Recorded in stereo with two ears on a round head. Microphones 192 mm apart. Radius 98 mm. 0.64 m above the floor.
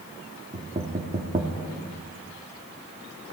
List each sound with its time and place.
0.5 s knocking: 30° right (ahead or behind), 1.1 m